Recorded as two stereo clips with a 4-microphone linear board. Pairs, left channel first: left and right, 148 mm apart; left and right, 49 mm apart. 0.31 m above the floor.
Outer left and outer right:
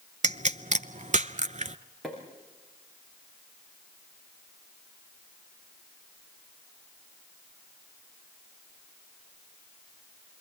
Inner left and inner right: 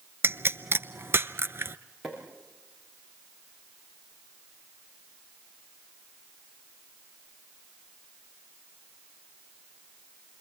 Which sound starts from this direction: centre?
A pop, at 2.0 s.